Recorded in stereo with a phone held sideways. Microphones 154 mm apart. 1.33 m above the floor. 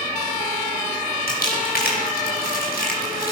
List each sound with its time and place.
1.3 s crumpling: 85° left, 6 m